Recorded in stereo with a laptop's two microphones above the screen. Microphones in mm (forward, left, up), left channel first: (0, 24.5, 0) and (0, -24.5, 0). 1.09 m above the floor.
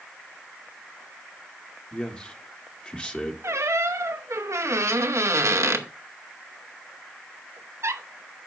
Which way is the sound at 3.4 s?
85° right.